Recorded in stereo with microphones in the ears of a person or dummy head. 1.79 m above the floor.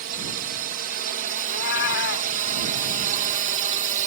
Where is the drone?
45° right (ahead or behind); by 4.1 s 40° right (ahead or behind).